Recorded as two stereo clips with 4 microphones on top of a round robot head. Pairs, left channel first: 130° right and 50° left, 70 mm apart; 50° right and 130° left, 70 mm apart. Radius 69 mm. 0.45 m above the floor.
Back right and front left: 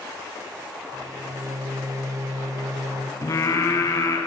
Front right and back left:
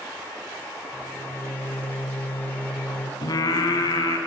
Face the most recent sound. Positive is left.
turn(degrees=-80)